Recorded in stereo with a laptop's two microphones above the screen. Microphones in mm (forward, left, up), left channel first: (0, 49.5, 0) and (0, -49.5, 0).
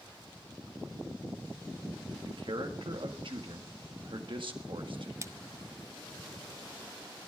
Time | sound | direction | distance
2.2 | a man speaking | 60° right (ahead or behind) | 1.6 m
5.2 | a splash | 30° right (ahead or behind) | 0.6 m